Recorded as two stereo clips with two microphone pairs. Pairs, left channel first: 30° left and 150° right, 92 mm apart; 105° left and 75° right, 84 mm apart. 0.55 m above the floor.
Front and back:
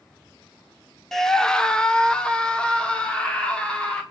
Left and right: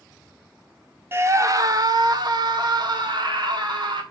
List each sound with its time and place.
1.1 s a scream: 55° right, 1.0 m; by 4.0 s 50° right, 4.5 m